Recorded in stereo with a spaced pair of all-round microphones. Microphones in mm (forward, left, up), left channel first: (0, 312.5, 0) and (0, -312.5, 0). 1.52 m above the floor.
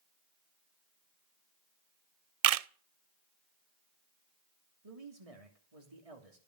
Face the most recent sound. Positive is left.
turn(degrees=-70)  # may be behind; listen again after turning